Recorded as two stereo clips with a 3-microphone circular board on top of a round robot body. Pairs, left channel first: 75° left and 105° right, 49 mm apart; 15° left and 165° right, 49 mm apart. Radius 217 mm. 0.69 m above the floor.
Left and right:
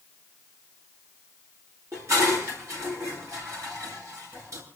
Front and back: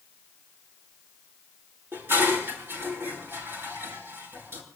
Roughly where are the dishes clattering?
Behind right.